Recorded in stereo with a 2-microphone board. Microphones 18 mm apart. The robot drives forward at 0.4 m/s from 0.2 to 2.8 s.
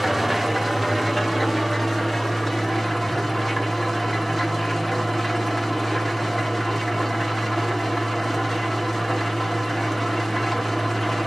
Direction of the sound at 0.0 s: 10° right (ahead or behind).